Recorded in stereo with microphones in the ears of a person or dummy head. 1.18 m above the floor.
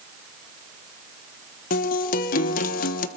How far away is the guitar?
About 1.2 m.